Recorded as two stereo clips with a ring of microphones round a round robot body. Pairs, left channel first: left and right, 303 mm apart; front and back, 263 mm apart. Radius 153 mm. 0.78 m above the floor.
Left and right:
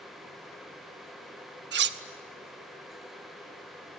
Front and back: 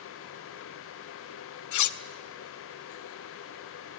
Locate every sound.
1.7 s cutlery clinking: 35° right, 0.9 m